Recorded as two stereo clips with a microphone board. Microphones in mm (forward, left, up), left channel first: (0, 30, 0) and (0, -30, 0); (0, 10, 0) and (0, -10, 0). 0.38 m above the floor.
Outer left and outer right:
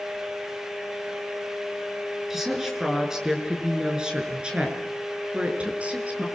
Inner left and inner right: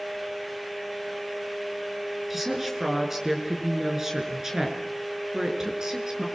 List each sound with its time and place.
2.3 s a woman speaking: 5° right (ahead or behind), 6.5 m; by 6.3 s 25° right (ahead or behind), 6.5 m